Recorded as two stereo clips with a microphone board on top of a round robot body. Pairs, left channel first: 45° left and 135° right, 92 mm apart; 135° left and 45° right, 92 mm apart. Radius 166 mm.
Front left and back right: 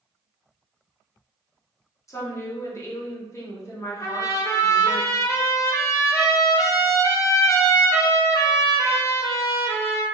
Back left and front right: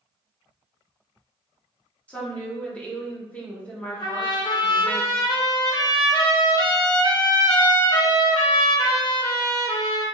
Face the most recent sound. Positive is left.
turn(degrees=100)